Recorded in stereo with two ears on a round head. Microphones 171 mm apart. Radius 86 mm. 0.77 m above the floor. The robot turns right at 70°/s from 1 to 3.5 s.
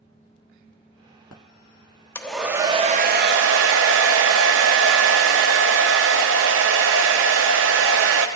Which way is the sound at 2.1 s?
165° left.